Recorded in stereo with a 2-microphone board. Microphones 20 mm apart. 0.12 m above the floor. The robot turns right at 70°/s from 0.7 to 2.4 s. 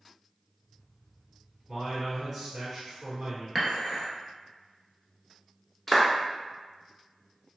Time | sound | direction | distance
1.7 | a man speaking | 160° left | 1.7 m
3.5 | dishes clattering | 10° left (ahead or behind) | 1.2 m
5.9 | a clap | 15° left (ahead or behind) | 0.8 m